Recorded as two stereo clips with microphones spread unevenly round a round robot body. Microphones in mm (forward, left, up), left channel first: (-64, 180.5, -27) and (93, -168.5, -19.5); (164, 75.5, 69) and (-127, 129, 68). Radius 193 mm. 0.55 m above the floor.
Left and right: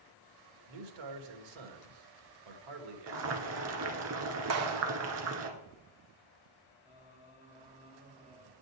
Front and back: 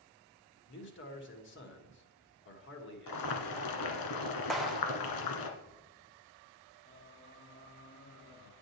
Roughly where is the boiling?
Ahead.